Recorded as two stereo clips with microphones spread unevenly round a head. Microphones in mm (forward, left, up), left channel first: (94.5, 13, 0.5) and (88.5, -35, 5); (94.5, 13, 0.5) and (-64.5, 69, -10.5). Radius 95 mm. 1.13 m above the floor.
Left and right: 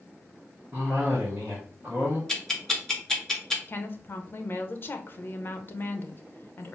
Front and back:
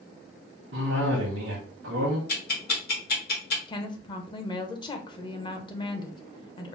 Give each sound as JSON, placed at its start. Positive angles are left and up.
{"t": 0.7, "sound": "a cough", "azimuth_deg": 180, "distance_m": 0.9}
{"t": 2.3, "sound": "ticking", "azimuth_deg": 5, "distance_m": 1.2}
{"t": 3.7, "sound": "a woman speaking", "azimuth_deg": 45, "distance_m": 0.8}